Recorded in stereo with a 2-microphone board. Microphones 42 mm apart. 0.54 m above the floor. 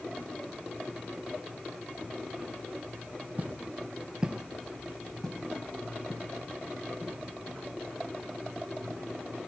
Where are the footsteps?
40° right (ahead or behind), 1.1 m; by 9.5 s 25° left (ahead or behind), 7 m.